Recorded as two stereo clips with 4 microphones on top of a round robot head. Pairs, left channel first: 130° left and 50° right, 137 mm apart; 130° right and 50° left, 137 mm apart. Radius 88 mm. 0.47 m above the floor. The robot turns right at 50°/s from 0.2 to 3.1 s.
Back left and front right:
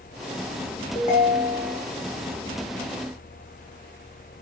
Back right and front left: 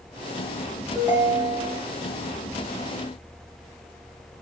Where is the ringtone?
125° left, 1.2 m; by 1.8 s 165° left, 1.2 m.